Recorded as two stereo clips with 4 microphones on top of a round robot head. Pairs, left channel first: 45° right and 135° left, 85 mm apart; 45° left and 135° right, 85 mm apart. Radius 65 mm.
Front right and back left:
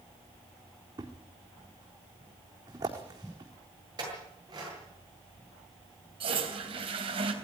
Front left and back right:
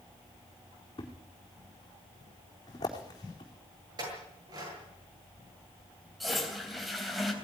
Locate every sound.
1.0 s a thud: 90° left, 4 m
4.0 s a clink: straight behind, 9 m
6.2 s a toilet flushing: 135° left, 3.5 m